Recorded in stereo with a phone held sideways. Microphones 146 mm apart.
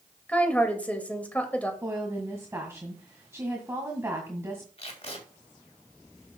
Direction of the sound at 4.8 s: 45° left (ahead or behind).